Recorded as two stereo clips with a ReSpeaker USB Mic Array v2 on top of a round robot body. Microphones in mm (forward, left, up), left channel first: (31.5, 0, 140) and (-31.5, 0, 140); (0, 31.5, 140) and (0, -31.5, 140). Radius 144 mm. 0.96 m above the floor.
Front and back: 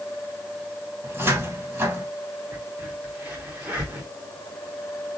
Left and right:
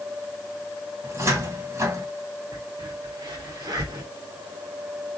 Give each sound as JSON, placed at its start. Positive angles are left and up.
{"t": 1.0, "sound": "a cupboard door", "azimuth_deg": -130, "distance_m": 1.7}
{"t": 2.5, "sound": "a crack", "azimuth_deg": -110, "distance_m": 1.6}